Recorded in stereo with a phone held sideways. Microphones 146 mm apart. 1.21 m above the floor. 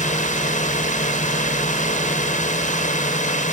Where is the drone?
60° left (ahead or behind).